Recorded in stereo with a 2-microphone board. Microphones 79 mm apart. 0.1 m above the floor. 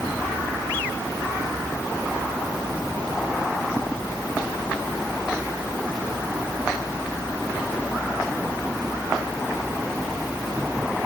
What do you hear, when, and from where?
Only background noise.